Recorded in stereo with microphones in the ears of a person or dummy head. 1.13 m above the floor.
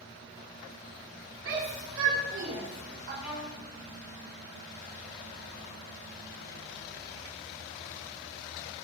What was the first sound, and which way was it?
A shout, 75° right (ahead or behind).